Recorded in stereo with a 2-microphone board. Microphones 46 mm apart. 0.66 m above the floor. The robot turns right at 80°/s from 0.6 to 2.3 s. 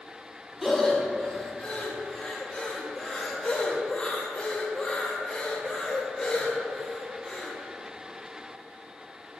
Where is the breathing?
Centre (ahead or behind), 0.9 m; by 7.5 s 20° left (ahead or behind), 0.9 m.